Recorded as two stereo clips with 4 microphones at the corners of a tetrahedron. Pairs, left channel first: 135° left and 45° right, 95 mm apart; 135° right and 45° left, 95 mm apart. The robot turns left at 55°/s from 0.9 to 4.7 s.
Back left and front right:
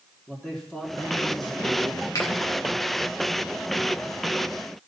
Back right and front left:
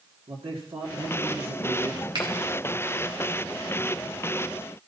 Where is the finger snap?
85° left, 2 m; by 2.3 s 75° left, 2 m.